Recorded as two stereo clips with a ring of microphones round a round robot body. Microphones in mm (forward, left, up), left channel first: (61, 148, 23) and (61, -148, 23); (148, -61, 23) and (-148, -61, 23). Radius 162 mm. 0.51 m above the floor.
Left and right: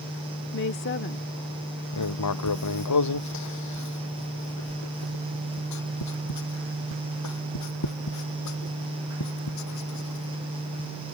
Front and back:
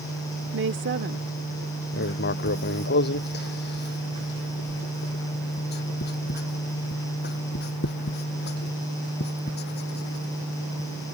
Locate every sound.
0.5 s a woman speaking: 135° left
1.9 s writing: 60° left